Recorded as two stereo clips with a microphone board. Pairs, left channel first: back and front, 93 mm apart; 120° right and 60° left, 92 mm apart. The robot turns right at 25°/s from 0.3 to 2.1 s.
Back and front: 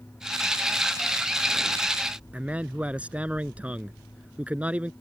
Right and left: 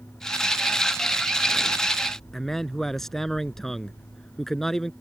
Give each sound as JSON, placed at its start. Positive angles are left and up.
{"t": 2.3, "sound": "a man speaking", "azimuth_deg": -40}